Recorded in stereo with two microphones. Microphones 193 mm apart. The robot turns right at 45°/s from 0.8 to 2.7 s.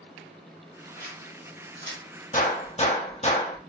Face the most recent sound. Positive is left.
turn(degrees=35)  # may be behind; listen again after turning